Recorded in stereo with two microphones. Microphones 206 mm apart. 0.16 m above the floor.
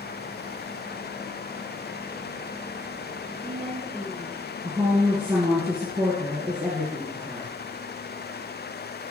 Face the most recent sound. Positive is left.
turn(degrees=-10)  # may be behind; listen again after turning